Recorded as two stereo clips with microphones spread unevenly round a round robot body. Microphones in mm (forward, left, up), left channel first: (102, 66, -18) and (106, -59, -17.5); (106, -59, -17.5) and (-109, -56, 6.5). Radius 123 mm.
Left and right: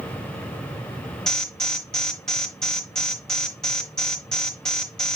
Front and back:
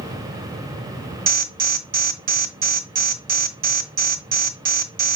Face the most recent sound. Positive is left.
turn(degrees=175)